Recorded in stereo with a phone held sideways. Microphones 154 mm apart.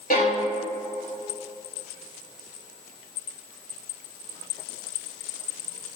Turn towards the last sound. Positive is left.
turn(degrees=80)